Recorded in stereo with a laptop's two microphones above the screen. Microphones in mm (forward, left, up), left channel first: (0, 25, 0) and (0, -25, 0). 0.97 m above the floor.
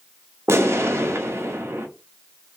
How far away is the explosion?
About 0.6 m.